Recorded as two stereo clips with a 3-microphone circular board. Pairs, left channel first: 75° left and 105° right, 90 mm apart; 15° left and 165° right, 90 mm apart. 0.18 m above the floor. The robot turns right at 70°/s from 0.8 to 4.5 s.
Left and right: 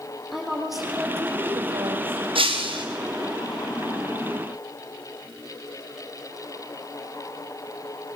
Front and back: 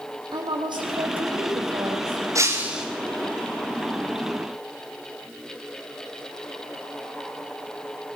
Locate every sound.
0.3 s a woman speaking: 170° left, 8.5 m; by 2.2 s 90° right, 8.5 m
2.4 s breaking glass: 115° right, 4 m; by 2.9 s 80° right, 4 m